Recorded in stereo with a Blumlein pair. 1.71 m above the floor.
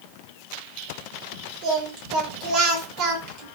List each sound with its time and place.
1.6 s singing: 40° right, 1.2 m